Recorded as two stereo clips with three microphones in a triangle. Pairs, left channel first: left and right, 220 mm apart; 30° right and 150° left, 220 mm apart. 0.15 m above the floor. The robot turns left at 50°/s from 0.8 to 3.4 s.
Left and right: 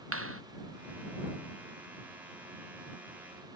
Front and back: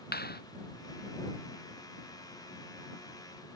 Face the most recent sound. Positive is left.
turn(degrees=155)